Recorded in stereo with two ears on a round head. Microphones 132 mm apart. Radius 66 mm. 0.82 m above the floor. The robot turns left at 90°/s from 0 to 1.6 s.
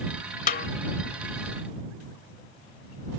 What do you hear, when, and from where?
0.5 s a snare drum: 60° left (ahead or behind); by 0.7 s 75° left (ahead or behind)